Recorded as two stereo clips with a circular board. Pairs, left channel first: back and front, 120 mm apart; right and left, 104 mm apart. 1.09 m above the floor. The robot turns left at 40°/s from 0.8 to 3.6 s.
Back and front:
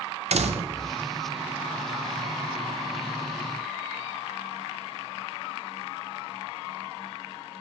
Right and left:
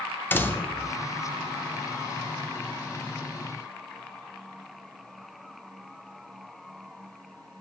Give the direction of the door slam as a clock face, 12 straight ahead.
1 o'clock.